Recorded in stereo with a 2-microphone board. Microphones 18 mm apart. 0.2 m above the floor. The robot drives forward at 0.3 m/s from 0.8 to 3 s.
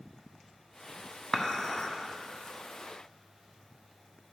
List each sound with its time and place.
1.3 s dishes clattering: 30° left (ahead or behind), 0.9 m; by 1.9 s 35° left (ahead or behind), 0.9 m